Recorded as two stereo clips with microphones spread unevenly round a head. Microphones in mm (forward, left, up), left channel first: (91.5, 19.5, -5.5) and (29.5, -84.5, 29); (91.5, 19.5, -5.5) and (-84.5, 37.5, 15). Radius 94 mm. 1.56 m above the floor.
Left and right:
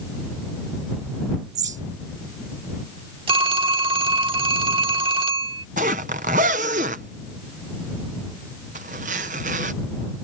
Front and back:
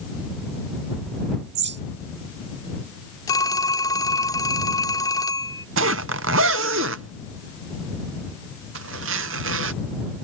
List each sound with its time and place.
1.6 s a bird: 155° right
3.3 s a phone ringing: 80° right
5.8 s a zipper: 160° right